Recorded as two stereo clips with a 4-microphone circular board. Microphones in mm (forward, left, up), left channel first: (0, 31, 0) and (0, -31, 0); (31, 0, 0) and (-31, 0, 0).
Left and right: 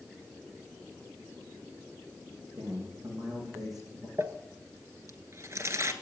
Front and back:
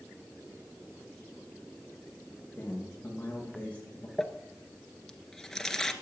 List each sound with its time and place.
2.6 s a man speaking: 65° right, 6.5 m; by 4.1 s 70° right, 6 m
4.2 s crumpling: 80° right, 1.0 m